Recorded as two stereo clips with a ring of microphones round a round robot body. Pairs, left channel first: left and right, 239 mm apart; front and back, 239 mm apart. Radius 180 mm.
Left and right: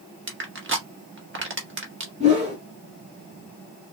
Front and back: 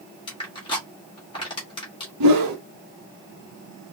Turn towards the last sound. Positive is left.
turn(degrees=-165)